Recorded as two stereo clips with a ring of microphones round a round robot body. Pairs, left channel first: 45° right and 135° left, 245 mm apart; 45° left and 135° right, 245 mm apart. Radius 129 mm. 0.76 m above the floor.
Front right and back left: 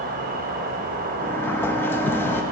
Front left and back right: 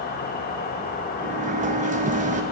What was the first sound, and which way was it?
An insect, 90° left.